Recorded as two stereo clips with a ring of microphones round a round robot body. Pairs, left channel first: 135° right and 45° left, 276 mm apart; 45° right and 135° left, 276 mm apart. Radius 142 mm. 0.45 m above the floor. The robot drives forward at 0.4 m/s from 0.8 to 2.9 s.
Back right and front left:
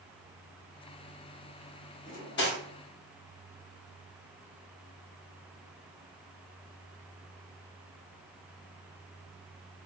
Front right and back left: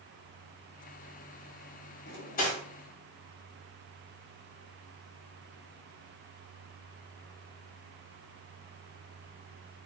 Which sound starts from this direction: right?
Cutlery clinking, at 2.1 s.